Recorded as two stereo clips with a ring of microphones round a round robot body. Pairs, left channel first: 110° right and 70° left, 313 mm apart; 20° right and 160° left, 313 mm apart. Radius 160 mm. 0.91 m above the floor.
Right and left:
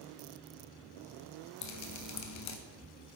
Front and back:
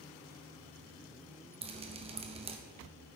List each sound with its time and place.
1.6 s dripping: 135° right, 0.8 m